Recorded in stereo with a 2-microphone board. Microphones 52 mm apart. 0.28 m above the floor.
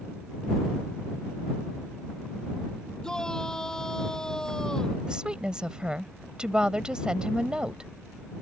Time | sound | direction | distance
3.0 | a shout | 15° left (ahead or behind) | ?
5.1 | a woman speaking | 20° right (ahead or behind) | ?